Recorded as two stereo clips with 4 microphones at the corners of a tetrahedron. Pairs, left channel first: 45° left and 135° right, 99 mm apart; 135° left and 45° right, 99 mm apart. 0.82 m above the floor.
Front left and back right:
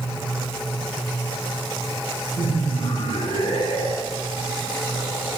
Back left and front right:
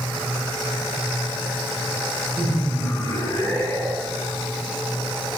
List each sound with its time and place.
2.4 s laughter: 65° left, 3.5 m; by 4.3 s 50° left, 3 m